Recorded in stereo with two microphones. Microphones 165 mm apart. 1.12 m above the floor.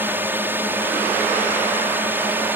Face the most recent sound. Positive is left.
turn(degrees=-10)  # may be behind; listen again after turning